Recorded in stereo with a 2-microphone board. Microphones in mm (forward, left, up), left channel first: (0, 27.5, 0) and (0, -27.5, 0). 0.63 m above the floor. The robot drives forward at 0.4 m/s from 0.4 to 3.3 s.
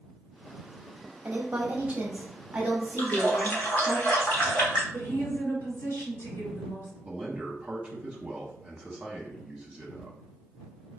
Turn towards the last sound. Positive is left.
turn(degrees=-20)  # may be behind; listen again after turning